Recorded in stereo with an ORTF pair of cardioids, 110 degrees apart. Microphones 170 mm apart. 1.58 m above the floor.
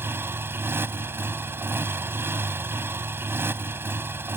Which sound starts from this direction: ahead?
A motorcycle, at 0.0 s.